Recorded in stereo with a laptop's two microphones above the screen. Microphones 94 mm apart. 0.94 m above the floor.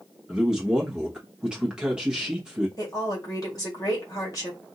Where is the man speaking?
10° right (ahead or behind), 1.3 m.